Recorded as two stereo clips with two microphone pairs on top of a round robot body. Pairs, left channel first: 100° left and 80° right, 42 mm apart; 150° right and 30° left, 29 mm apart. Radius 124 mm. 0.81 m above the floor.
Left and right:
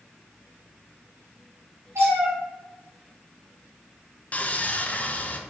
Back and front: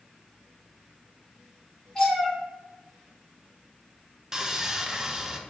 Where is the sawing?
80° left, 0.6 m.